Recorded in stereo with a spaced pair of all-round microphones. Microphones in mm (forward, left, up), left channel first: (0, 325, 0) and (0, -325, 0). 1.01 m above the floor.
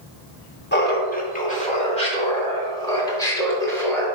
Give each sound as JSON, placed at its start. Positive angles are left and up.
{"t": 0.7, "sound": "laughter", "side_deg": 15, "distance_m": 1.5}